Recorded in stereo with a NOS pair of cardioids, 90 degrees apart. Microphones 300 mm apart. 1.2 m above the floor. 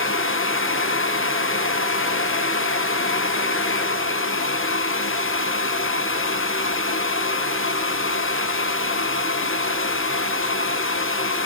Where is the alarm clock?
No alarm clock in this recording.